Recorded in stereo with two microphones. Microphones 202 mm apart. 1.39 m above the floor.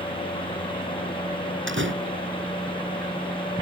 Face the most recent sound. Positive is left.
turn(degrees=-70)  # may be behind; listen again after turning